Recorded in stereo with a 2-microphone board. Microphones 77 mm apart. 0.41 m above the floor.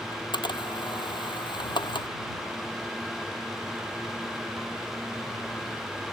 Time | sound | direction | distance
0.1 | a camera shutter | 80° left | ?